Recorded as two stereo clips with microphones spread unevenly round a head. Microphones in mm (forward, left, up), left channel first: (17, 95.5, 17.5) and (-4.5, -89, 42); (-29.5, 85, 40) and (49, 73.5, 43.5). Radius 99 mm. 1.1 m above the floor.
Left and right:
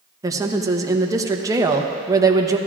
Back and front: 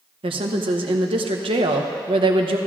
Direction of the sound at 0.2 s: 20° right.